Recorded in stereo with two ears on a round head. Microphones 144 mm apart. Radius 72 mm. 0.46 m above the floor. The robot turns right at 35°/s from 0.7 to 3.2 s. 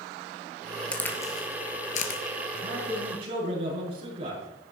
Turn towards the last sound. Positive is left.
turn(degrees=-35)  # may be behind; listen again after turning